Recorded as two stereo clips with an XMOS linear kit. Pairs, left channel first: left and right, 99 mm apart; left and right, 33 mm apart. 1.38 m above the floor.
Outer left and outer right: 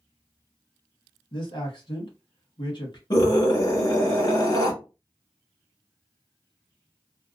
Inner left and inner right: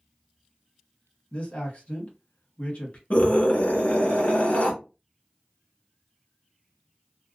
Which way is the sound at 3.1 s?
50° left (ahead or behind).